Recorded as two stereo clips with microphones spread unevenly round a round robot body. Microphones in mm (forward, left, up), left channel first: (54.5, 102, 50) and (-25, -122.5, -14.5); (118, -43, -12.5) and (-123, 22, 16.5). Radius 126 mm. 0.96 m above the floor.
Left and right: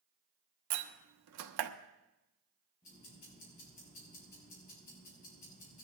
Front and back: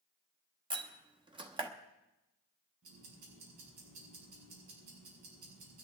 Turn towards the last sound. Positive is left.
turn(degrees=130)